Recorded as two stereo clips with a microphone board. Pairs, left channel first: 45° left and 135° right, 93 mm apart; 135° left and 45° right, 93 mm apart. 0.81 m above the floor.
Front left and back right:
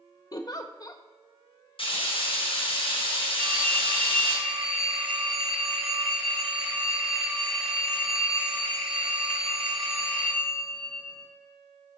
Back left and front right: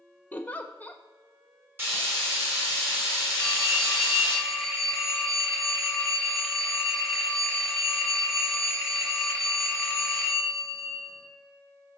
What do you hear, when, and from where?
0.3 s a giggle: 70° left, 0.8 m
1.8 s frying: 20° left, 5.5 m
3.4 s a phone ringing: 135° right, 3 m